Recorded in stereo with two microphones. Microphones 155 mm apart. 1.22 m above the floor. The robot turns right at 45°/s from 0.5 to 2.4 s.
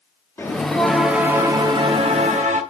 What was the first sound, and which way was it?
A bell, 160° left.